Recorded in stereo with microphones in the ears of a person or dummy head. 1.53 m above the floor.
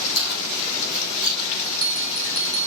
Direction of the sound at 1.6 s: 35° left (ahead or behind).